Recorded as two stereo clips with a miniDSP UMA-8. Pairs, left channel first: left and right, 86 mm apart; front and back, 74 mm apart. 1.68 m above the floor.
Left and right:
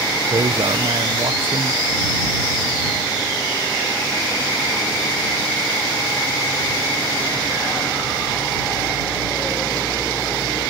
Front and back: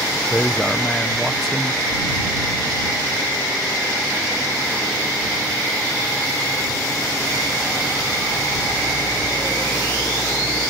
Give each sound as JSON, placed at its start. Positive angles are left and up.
{"t": 0.3, "sound": "a man speaking", "azimuth_deg": -85}